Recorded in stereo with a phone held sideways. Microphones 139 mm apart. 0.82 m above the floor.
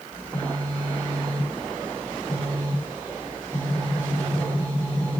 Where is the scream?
No scream in this recording.